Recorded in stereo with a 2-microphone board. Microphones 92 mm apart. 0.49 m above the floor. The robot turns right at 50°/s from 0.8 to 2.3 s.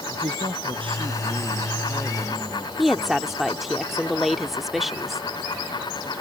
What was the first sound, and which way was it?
A man speaking, 70° right.